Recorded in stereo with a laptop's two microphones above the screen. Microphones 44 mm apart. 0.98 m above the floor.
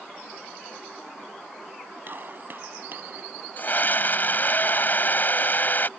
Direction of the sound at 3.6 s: 45° left (ahead or behind).